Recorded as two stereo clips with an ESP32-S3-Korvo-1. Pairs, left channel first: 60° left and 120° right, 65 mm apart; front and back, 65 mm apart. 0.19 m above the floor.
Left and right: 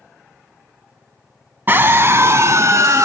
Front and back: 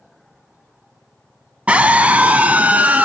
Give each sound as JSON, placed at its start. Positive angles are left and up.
{"t": 1.7, "sound": "a scream", "azimuth_deg": -130, "distance_m": 1.2}